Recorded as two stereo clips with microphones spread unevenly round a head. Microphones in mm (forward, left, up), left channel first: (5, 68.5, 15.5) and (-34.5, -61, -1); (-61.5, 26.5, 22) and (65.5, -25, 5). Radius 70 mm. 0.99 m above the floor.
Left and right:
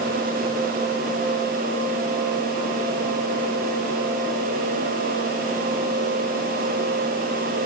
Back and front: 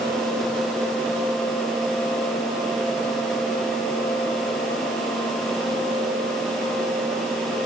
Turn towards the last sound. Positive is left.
No sound to turn to.